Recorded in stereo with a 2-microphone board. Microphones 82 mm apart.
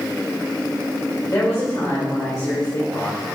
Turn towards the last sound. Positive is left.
turn(degrees=35)  # may be behind; listen again after turning